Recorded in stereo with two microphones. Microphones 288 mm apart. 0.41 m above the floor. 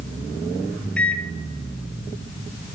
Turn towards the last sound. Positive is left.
turn(degrees=5)  # may be behind; listen again after turning